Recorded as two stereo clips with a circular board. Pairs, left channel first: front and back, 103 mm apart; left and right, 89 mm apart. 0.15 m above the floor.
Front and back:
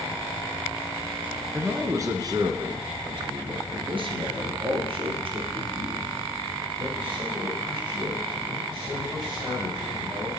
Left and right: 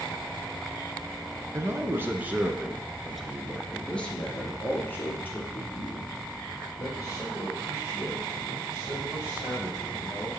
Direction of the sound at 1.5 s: 125° right.